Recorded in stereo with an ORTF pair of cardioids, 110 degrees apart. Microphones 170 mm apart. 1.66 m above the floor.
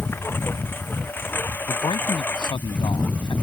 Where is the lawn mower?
15° left; by 3.4 s 10° left.